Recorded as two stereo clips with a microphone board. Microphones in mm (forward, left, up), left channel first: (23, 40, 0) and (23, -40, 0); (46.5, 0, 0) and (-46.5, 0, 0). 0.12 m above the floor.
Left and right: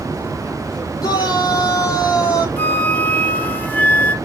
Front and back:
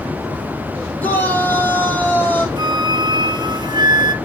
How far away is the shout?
About 3.5 m.